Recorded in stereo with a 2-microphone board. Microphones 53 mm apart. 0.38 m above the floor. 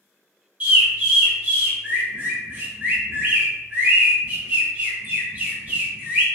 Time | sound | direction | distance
0.6 | a bird | 30° right (ahead or behind) | 1.4 m